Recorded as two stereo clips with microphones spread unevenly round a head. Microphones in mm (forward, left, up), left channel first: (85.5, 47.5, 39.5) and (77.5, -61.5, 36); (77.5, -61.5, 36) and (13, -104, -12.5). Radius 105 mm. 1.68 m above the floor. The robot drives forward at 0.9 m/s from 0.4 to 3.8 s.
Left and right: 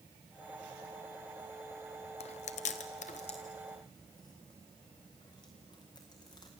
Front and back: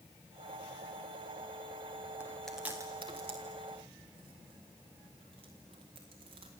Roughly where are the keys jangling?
No keys jangling in this recording.